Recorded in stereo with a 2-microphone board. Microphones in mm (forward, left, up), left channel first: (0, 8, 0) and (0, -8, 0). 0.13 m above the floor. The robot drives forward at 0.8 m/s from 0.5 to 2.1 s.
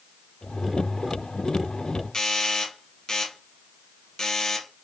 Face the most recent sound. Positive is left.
turn(degrees=45)  # may be behind; listen again after turning